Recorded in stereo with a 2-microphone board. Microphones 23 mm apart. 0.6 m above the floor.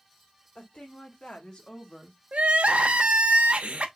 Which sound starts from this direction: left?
A woman speaking, at 0.6 s.